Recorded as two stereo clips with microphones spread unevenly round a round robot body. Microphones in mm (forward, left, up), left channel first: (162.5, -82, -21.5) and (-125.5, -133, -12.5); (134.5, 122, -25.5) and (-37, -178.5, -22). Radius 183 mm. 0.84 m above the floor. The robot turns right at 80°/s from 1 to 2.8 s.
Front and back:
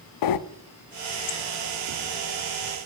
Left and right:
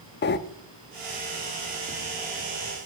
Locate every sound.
0.2 s breathing: 5° right, 0.6 m